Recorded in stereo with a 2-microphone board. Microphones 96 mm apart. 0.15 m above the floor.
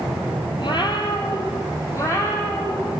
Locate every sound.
0.6 s a cat meowing: 60° left (ahead or behind), 1.3 m; by 3.0 s 25° left (ahead or behind), 2.5 m